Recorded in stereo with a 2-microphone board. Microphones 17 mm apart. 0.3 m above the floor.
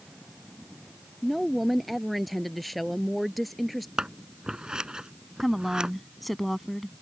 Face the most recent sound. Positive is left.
turn(degrees=0)  # may be behind; listen again after turning